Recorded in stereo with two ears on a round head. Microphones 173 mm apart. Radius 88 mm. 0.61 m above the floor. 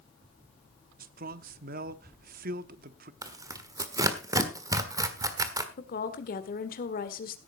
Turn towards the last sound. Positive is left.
turn(degrees=50)  # may be behind; listen again after turning